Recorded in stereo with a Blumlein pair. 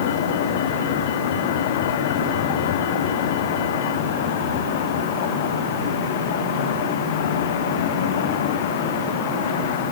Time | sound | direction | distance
0.0 | a vehicle | 55° left | ?